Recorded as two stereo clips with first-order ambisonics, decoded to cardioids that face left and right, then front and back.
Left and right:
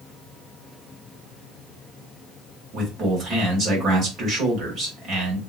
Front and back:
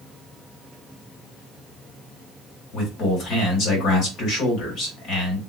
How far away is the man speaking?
About 1.8 m.